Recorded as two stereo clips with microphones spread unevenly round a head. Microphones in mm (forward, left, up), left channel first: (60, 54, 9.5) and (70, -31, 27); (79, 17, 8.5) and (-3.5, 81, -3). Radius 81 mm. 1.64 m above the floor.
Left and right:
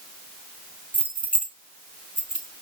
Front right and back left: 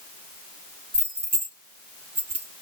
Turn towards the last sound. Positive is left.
turn(degrees=-165)